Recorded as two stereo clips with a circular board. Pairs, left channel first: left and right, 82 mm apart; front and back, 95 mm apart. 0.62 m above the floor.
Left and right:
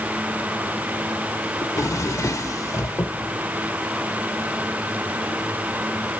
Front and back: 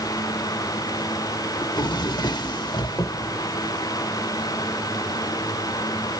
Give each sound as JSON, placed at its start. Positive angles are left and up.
{"t": 1.6, "sound": "a drawer", "azimuth_deg": 40, "distance_m": 1.0}